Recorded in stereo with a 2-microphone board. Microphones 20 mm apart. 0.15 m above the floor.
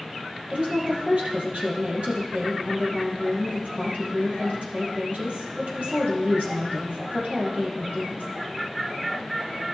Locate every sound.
0.5 s a woman speaking: 60° right (ahead or behind), 3 m